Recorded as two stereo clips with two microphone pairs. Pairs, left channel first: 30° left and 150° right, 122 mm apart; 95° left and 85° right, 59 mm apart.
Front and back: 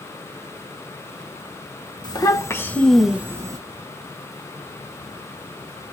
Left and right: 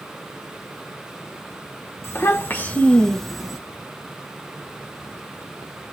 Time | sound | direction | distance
2.0 | a child speaking | 75° left | 1.1 m